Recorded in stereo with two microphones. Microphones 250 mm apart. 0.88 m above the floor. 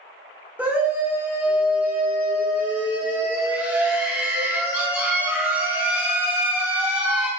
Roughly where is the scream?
Centre.